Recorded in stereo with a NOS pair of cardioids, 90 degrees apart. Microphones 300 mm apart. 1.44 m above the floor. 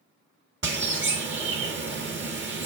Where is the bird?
40° right, 1.7 m.